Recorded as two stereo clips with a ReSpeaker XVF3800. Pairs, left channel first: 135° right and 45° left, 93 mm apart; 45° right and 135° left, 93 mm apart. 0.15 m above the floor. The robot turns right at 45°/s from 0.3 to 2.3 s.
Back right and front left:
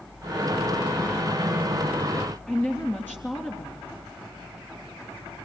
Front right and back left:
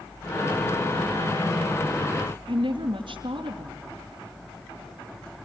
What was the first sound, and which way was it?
A woman speaking, 155° left.